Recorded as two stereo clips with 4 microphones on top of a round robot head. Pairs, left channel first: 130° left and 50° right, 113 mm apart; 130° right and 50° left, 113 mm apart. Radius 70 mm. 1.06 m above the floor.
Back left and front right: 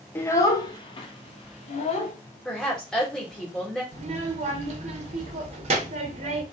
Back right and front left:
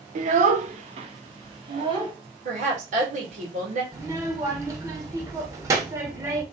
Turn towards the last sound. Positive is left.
turn(degrees=-15)